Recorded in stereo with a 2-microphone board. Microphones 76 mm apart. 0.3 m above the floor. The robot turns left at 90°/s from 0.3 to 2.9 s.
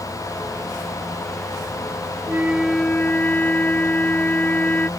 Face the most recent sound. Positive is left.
turn(degrees=160)